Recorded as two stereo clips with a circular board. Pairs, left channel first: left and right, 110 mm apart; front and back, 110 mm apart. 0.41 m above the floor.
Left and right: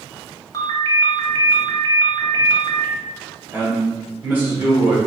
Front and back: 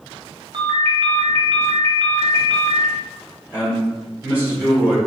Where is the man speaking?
130° right, 1.5 m.